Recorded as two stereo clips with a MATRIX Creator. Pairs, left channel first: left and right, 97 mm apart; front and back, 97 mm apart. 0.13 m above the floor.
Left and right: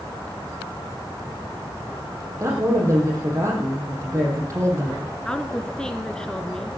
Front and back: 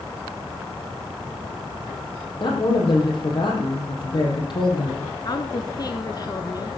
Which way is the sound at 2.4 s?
35° right.